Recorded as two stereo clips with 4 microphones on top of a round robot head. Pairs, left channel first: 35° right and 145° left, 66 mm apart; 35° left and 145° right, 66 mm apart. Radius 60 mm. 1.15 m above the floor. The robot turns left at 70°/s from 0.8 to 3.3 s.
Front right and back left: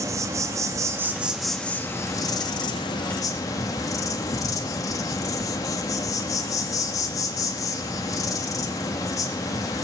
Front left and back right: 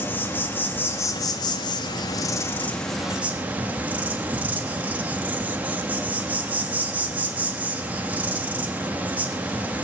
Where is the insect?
100° left, 1.2 m; by 9.8 s 75° right, 1.2 m.